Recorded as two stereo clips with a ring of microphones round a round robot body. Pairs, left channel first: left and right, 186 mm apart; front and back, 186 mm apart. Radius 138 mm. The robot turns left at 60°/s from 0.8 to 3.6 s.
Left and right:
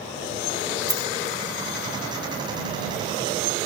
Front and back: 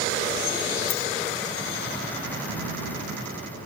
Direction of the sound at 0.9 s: 20° right.